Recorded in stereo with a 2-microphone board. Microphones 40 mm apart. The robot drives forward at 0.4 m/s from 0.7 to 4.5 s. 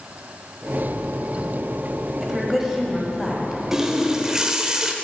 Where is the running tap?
15° right (ahead or behind), 0.7 m.